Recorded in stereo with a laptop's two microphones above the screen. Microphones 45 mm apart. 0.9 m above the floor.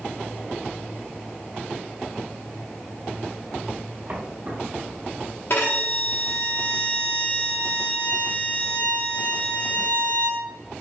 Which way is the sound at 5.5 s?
60° left (ahead or behind).